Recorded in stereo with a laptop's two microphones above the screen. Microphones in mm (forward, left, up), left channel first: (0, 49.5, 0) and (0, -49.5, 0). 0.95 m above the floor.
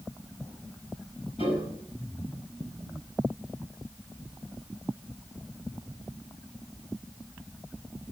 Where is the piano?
85° left, 8 m.